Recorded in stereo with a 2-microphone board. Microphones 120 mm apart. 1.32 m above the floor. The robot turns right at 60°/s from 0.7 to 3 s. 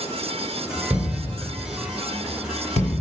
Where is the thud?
20° right (ahead or behind), 1.3 m; by 3.0 s 55° left (ahead or behind), 1.3 m.